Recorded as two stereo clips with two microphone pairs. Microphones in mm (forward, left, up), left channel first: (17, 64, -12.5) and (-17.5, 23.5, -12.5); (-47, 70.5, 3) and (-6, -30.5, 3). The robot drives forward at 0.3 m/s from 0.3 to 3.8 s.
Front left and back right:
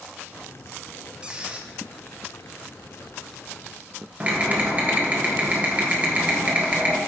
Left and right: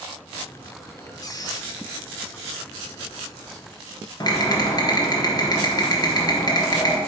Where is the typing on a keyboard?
165° left, 1.2 m.